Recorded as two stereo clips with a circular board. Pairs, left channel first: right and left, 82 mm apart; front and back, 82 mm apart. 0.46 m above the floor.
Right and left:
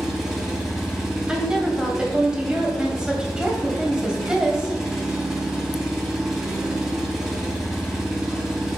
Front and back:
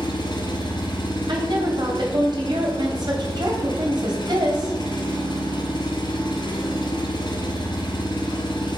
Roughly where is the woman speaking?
Behind.